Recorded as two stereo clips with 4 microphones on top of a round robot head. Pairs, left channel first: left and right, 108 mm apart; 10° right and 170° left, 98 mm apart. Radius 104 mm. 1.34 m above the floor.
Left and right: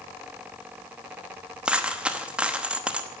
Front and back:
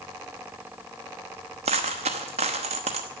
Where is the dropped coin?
165° right, 0.9 m.